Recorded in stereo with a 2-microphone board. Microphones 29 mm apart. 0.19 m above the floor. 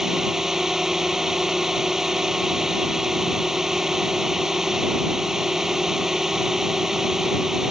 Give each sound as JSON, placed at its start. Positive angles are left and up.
{"t": 0.0, "sound": "a drone", "side_deg": -20}